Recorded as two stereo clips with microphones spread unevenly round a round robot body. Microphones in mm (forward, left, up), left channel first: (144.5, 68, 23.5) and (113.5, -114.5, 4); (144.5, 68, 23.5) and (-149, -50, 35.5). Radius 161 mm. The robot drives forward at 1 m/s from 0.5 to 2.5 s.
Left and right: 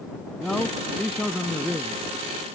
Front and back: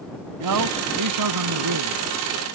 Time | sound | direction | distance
0.4 | a man speaking | 170° left | ?